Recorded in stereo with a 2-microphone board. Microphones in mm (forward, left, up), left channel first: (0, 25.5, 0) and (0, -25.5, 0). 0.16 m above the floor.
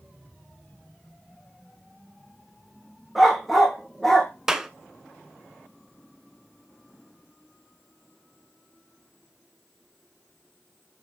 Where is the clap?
10° right (ahead or behind), 1.2 m.